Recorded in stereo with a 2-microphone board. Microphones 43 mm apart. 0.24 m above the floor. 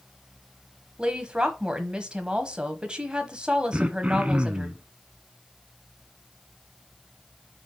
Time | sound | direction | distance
1.0 | a woman speaking | 20° right (ahead or behind) | 1.1 m
3.7 | throat clearing | 30° right (ahead or behind) | 0.7 m